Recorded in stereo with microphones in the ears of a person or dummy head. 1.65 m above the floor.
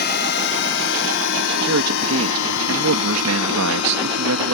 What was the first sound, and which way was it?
A drone, 55° left (ahead or behind).